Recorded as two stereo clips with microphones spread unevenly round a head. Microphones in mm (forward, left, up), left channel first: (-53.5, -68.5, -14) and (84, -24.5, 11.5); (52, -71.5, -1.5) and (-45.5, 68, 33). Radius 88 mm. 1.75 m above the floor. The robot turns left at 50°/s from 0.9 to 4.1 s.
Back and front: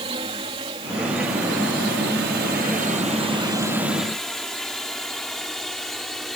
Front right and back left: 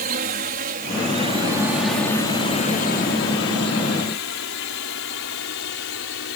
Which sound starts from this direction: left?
A drone, at 0.0 s.